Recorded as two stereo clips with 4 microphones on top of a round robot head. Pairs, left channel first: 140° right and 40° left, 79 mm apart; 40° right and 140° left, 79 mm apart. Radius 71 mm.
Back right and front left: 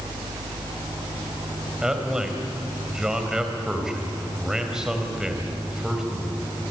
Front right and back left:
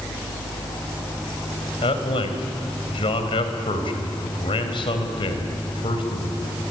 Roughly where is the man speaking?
Ahead right.